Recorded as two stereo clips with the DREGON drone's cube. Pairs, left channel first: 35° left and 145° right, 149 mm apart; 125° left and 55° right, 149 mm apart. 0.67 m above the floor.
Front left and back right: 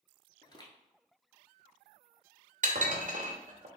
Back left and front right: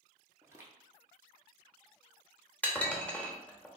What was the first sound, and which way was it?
Footsteps, straight ahead.